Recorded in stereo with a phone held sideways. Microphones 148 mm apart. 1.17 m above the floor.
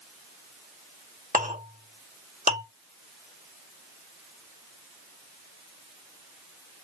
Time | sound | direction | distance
1.3 | a clink | 65° right (ahead or behind) | 1.7 m